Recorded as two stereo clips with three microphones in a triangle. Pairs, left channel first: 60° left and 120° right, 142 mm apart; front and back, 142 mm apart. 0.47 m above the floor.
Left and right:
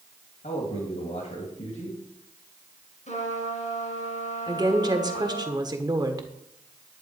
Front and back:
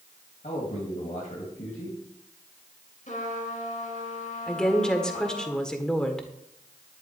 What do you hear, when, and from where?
0.4 s a man speaking: 30° left, 3 m
3.1 s a trumpet: 30° left, 3.5 m
4.5 s a woman speaking: 80° right, 1.5 m